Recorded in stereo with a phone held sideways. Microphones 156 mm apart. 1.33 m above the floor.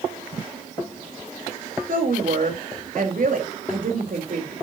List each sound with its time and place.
1.9 s a woman speaking: 70° right (ahead or behind), 3.5 m